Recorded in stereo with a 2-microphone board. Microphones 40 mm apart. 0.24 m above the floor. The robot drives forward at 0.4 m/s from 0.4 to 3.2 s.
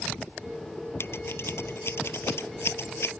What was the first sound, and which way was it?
Scissors, 70° left (ahead or behind).